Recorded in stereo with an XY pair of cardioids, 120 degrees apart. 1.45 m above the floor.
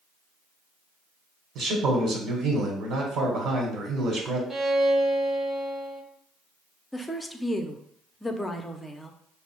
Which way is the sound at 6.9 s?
15° left.